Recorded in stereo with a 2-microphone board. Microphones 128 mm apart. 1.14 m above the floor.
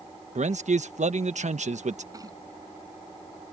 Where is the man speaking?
70° right (ahead or behind).